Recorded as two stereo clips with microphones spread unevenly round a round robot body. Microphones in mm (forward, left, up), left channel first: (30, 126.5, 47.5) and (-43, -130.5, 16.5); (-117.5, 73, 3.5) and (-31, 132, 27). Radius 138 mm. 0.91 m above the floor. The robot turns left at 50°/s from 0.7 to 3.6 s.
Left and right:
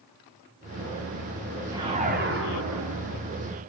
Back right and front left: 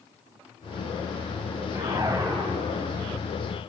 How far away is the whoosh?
About 2 m.